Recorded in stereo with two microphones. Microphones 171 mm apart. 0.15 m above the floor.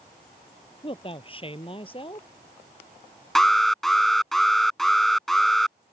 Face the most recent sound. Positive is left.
turn(degrees=0)  # may be behind; listen again after turning